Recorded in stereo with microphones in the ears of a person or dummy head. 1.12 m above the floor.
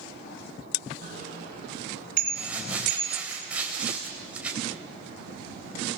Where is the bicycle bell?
50° right (ahead or behind), 9.5 m; by 3.3 s 45° right (ahead or behind), 6 m.